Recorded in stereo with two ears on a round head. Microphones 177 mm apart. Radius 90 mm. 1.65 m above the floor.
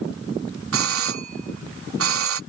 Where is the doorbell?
85° right.